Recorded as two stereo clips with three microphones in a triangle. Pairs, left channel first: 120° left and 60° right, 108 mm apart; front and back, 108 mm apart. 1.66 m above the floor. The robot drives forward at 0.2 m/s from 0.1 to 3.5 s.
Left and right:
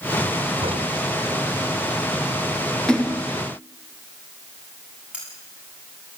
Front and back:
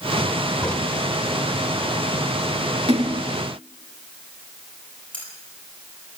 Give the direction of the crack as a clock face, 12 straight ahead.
3 o'clock.